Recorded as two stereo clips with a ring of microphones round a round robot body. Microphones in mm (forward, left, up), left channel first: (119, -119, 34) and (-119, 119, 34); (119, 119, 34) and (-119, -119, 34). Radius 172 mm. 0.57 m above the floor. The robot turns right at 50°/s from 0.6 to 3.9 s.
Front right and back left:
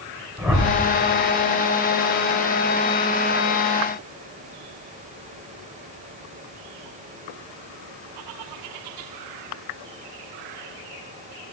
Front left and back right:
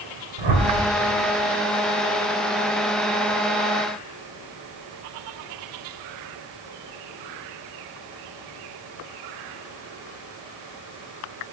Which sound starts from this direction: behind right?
A whoosh, at 0.4 s.